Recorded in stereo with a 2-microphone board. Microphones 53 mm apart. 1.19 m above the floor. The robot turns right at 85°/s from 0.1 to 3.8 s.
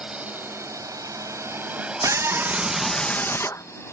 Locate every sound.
0.0 s a drone: 20° right (ahead or behind); by 3.9 s 50° left (ahead or behind)
2.0 s a scream: 70° right; by 3.6 s 70° left